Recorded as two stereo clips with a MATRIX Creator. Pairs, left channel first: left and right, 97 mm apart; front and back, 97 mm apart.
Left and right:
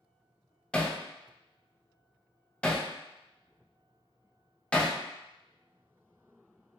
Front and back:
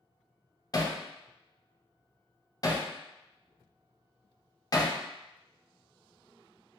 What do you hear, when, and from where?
0.7 s hammering: 15° left, 0.6 m